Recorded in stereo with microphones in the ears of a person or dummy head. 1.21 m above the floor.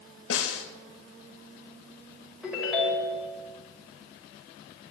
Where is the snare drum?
75° left (ahead or behind), 1.9 m.